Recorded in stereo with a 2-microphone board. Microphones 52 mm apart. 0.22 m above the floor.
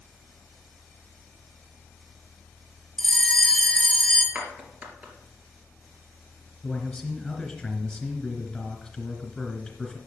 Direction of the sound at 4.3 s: 30° right (ahead or behind).